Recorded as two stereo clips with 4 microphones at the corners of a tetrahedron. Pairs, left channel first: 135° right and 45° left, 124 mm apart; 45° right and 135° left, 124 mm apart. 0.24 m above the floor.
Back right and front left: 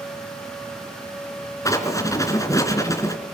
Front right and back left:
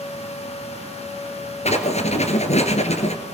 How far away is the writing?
About 2.5 m.